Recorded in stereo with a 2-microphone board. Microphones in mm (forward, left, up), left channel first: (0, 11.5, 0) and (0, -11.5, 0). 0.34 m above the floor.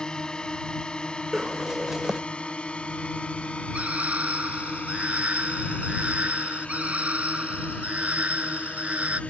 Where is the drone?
35° left (ahead or behind); by 9.3 s 70° left (ahead or behind).